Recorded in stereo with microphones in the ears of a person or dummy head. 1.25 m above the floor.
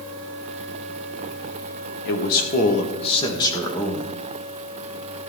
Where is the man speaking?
55° left (ahead or behind), 2 m; by 4.1 s centre (ahead or behind), 2 m.